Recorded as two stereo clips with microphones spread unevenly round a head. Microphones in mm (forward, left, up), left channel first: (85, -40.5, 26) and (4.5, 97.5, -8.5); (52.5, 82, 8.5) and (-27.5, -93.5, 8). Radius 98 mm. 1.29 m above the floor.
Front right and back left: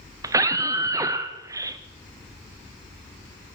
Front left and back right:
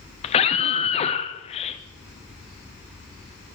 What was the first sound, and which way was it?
A scream, 95° left.